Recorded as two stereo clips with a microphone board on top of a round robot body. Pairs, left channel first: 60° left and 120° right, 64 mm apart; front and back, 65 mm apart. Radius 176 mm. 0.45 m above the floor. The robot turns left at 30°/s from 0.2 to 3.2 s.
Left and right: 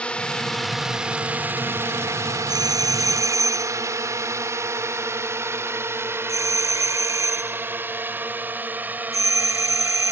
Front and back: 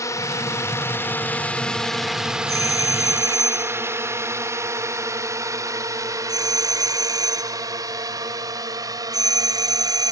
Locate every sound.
0.0 s a drone: 10° right; by 10.1 s 175° left
2.5 s a doorbell: 140° right; by 10.1 s 160° right